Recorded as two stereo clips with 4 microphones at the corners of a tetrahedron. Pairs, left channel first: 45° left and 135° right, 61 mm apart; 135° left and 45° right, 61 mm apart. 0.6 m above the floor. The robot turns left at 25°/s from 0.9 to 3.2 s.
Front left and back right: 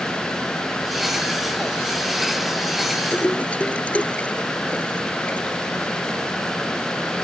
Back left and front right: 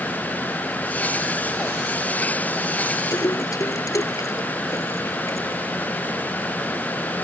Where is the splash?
115° left.